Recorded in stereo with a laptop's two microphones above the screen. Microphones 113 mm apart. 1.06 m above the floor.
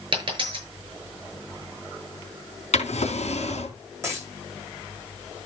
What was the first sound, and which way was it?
A dropped coin, 45° right (ahead or behind).